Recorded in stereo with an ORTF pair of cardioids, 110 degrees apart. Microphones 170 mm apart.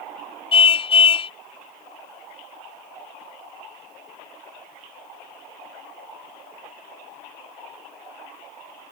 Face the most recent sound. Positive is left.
turn(degrees=35)